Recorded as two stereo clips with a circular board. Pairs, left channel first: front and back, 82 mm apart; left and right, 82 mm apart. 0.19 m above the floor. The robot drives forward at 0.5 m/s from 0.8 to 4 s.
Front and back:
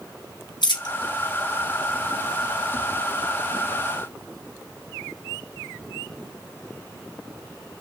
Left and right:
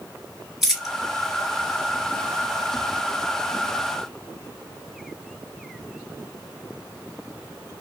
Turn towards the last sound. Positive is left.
turn(degrees=-120)